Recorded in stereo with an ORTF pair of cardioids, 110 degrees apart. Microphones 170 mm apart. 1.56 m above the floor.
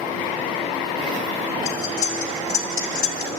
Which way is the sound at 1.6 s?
55° left.